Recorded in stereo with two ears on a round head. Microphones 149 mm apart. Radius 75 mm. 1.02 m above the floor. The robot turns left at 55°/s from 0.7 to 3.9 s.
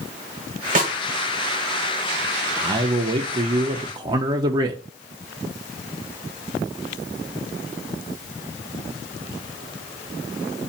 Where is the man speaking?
45° right, 0.6 m; by 4.8 s 120° right, 0.6 m.